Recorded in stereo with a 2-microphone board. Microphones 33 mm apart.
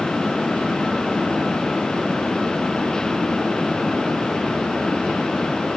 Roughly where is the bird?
I don't hear a bird.